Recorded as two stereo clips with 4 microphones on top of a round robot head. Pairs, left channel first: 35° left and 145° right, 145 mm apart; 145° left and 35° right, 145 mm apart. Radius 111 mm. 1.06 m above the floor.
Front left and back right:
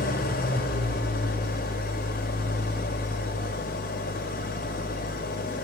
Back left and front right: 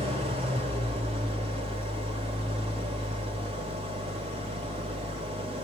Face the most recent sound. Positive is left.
turn(degrees=15)